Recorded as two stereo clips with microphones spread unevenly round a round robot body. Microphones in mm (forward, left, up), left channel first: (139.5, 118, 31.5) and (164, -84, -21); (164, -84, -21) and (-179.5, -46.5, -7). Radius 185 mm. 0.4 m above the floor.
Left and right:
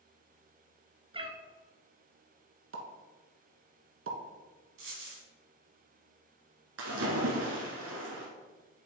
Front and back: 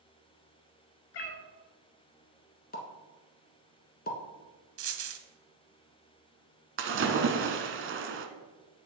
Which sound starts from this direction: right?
A pop, at 2.7 s.